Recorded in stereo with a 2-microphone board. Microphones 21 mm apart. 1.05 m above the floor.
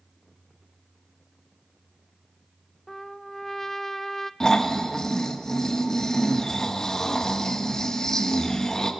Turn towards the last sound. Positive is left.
turn(degrees=30)  # may be behind; listen again after turning